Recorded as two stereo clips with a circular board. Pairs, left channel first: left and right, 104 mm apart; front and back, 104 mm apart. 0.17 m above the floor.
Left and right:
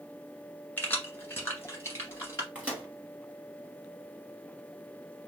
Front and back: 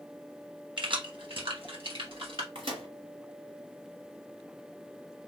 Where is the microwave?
165° right, 2.0 m.